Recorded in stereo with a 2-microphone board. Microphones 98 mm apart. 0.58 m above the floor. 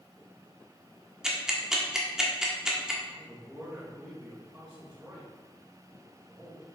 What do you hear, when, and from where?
1.2 s ticking: 5° right (ahead or behind), 1.4 m
3.1 s a man speaking: 15° right (ahead or behind), 3 m